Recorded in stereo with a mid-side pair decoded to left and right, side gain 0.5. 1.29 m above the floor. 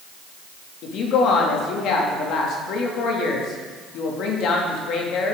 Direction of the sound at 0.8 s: 70° left.